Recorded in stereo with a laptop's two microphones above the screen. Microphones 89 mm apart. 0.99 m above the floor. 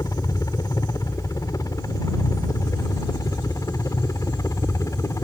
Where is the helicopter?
45° left (ahead or behind); by 5.2 s 40° left (ahead or behind).